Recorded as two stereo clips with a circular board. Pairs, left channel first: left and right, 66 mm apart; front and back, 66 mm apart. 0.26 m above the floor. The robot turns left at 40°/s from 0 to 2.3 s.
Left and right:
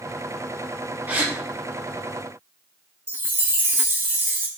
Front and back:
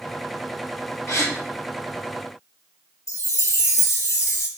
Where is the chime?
35° right, 0.6 m.